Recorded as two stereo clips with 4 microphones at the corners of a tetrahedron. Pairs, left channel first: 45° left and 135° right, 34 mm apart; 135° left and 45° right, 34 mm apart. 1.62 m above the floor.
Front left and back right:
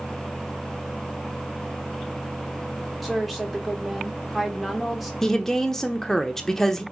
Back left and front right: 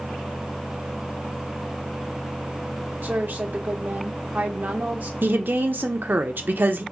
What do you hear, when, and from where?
3.0 s a woman speaking: 45° right, 1.2 m
5.2 s a woman speaking: 30° right, 0.7 m